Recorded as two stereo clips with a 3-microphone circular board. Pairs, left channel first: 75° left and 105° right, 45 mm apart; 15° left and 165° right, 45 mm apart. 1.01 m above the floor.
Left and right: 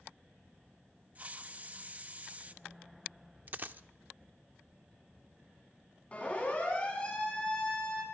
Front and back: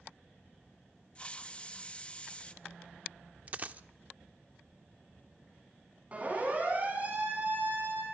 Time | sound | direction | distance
1.1 | a hiss | 50° right | 0.9 m
3.5 | a dropped coin | 130° right | 0.7 m
6.1 | a siren | 135° left | 10 m